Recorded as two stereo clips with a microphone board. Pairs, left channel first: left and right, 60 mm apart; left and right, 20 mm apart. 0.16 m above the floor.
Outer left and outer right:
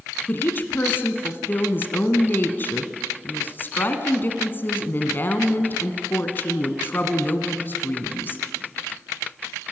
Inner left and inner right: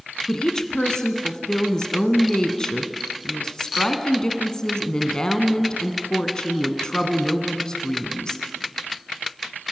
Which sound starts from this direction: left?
A woman speaking, at 0.3 s.